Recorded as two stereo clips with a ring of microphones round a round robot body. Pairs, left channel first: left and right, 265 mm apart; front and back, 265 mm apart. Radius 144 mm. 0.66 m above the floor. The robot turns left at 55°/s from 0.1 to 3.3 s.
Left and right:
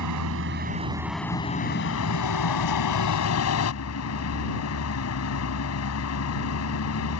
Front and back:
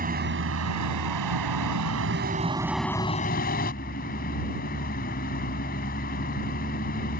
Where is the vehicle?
120° right; by 7.2 s 60° left.